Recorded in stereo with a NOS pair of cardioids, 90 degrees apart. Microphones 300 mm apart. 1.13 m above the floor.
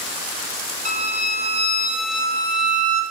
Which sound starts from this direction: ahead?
A violin, at 0.8 s.